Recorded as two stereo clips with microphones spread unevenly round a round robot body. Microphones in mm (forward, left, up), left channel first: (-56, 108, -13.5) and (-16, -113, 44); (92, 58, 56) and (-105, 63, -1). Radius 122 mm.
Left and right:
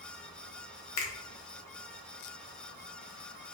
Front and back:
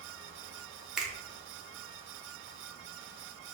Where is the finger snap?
100° left, 0.9 m.